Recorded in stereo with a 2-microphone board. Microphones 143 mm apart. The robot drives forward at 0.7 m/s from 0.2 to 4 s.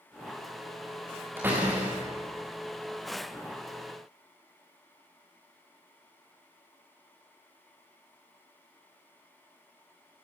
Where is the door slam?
15° right (ahead or behind), 9 m.